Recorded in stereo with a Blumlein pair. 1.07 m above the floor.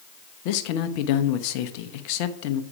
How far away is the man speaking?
About 0.8 m.